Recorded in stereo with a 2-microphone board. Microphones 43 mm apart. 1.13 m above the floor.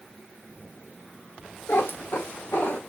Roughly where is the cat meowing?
Left.